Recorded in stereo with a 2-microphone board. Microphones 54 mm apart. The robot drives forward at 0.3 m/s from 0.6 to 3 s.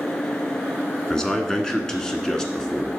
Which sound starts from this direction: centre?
A man speaking, at 1.1 s.